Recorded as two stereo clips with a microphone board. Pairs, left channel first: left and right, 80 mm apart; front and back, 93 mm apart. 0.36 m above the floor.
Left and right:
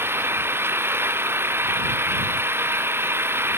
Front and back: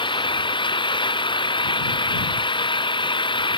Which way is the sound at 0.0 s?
30° right.